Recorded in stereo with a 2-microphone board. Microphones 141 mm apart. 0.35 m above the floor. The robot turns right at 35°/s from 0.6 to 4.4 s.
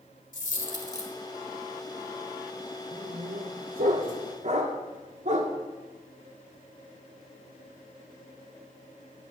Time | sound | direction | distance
0.3 | a dropped coin | 65° left (ahead or behind) | 1.2 m
2.9 | a dog barking | 75° right (ahead or behind) | 1.2 m